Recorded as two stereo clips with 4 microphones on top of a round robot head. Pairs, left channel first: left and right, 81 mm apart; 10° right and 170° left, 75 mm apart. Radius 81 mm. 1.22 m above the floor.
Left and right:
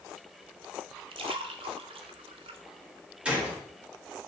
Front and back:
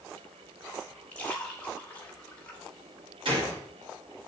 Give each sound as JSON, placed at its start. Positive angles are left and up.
{"t": 1.1, "sound": "a splash", "azimuth_deg": -85, "distance_m": 1.0}
{"t": 3.2, "sound": "a gunshot", "azimuth_deg": -170, "distance_m": 3.0}